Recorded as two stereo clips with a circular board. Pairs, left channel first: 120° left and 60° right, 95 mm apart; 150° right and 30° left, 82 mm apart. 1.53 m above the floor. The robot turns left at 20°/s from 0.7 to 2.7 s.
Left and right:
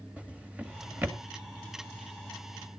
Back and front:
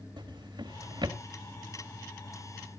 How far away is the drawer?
About 1.9 m.